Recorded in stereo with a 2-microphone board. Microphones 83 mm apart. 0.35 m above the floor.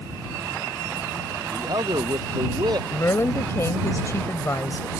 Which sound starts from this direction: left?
A woman speaking, at 2.9 s.